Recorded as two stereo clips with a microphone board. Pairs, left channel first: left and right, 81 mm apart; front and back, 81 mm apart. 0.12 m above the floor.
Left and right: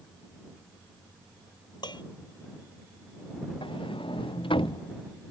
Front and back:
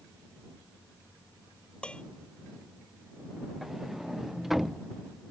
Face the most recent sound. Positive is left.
turn(degrees=95)